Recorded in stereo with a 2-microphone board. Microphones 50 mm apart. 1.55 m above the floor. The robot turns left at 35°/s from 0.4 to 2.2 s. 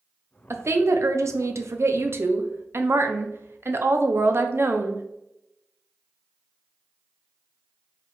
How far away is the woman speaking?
About 0.6 m.